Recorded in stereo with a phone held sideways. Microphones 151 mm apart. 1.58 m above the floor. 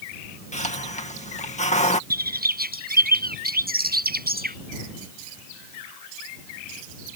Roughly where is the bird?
Right.